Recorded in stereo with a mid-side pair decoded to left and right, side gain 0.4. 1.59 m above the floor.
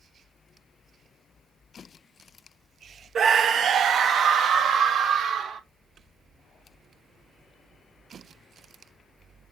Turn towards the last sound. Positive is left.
turn(degrees=-75)